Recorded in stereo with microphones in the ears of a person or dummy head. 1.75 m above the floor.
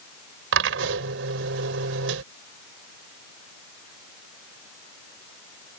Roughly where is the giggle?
No giggle in this recording.